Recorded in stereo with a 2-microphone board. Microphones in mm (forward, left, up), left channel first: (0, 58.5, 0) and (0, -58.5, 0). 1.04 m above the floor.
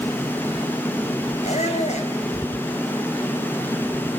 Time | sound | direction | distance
1.4 | a squeak | 85° left | 4 m